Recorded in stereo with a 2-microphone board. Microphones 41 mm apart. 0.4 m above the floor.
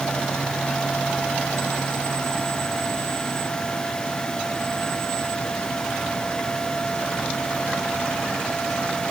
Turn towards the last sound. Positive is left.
No sound to turn to.